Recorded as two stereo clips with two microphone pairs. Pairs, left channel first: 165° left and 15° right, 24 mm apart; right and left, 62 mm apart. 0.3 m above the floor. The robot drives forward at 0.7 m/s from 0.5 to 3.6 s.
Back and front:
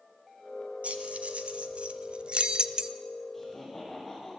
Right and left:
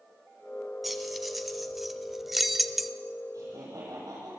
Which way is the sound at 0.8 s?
Straight ahead.